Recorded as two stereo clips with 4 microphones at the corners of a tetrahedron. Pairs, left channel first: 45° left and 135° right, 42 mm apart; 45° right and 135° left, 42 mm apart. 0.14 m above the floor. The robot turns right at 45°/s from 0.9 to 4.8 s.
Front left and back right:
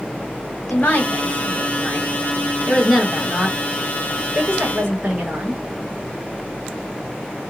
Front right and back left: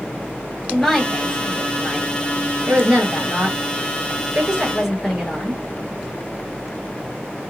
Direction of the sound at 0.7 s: 45° left.